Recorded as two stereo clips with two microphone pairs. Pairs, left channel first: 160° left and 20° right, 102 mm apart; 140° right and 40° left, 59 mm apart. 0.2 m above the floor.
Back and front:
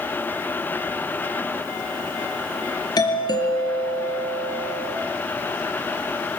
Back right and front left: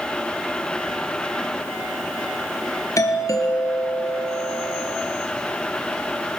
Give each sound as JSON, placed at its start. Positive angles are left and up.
{"t": 3.0, "sound": "a doorbell", "azimuth_deg": -155, "distance_m": 4.5}